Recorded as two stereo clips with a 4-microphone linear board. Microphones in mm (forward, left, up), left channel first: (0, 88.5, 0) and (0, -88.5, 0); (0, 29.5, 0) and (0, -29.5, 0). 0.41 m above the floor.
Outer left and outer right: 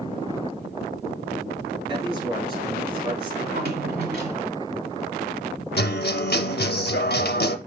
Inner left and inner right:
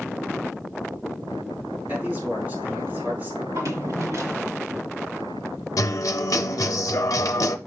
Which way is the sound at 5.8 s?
65° left (ahead or behind).